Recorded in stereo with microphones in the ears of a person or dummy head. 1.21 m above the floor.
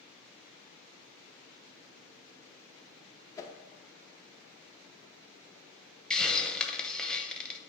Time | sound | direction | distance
3.4 | a whoosh | 25° left (ahead or behind) | 0.6 m
6.1 | a hiss | 10° left (ahead or behind) | 0.6 m